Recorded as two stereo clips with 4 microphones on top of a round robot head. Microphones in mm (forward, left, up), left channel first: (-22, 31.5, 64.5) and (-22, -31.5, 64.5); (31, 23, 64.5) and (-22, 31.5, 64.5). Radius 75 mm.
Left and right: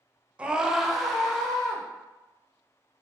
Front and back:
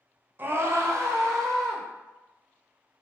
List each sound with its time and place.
0.4 s a scream: 155° right, 0.6 m; by 1.8 s 175° left, 1.5 m